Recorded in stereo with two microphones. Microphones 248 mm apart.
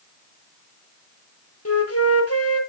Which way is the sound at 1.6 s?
85° left.